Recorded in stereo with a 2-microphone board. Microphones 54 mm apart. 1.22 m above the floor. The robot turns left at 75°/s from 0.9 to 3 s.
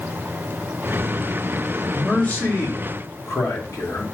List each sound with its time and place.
1.9 s a man speaking: 170° left, 2.5 m; by 4.0 s 90° left, 2.5 m